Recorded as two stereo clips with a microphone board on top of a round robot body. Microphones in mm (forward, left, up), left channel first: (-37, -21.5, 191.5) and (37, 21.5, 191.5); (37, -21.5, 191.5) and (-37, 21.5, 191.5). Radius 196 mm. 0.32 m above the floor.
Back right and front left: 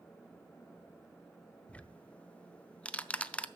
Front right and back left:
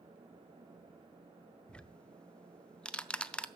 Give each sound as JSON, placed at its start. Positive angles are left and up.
{"t": 1.7, "sound": "ticking", "azimuth_deg": -95, "distance_m": 0.7}